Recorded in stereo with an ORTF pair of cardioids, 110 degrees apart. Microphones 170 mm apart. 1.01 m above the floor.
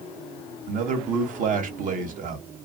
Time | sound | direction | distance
0.7 | a man speaking | 50° right | 1.1 m